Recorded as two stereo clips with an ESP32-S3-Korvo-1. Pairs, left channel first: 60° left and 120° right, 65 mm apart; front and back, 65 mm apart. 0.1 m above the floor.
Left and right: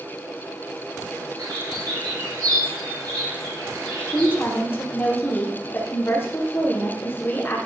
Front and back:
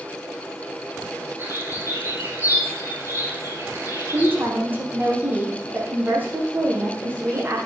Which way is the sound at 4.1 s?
120° left.